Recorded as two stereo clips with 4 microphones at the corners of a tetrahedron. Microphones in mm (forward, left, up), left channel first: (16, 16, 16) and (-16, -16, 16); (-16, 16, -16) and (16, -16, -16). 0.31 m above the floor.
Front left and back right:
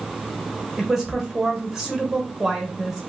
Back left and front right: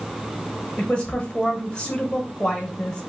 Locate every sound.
0.8 s a woman speaking: 160° left, 1.0 m